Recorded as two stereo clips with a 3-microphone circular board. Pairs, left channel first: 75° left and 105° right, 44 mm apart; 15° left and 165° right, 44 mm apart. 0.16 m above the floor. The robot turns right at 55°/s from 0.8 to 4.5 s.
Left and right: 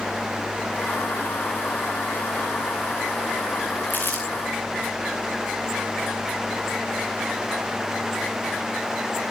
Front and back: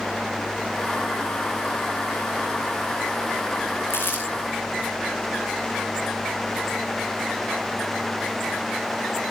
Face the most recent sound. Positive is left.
turn(degrees=65)